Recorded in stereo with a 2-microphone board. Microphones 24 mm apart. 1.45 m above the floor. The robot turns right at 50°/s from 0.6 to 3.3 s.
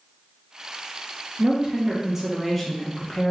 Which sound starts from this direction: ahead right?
A woman speaking, at 1.4 s.